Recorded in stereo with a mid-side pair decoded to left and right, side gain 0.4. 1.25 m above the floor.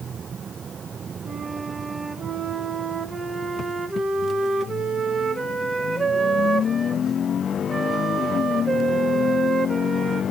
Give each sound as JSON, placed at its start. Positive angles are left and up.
{"t": 1.2, "sound": "a flute", "azimuth_deg": -35, "distance_m": 1.4}